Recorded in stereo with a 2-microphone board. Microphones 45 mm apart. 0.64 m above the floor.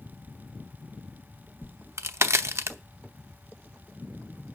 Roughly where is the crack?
Right.